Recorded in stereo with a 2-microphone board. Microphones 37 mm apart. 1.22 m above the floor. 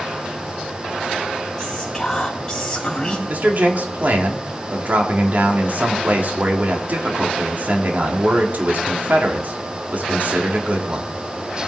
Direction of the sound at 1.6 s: 15° left (ahead or behind).